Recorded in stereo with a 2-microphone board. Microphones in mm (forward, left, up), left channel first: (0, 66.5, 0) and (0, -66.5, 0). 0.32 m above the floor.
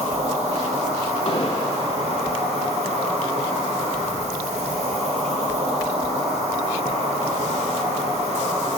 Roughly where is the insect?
Right.